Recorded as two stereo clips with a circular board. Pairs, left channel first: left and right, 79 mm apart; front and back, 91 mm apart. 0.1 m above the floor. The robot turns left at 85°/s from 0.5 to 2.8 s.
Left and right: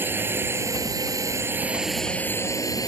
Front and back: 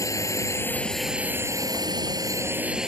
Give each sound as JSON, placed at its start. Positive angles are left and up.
{"t": 0.0, "sound": "a drone", "azimuth_deg": -40}